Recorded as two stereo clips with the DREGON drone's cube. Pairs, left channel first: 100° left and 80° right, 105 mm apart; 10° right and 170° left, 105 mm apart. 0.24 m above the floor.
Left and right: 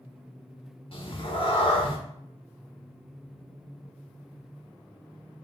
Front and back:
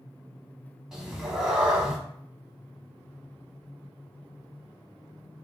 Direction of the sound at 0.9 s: 85° left.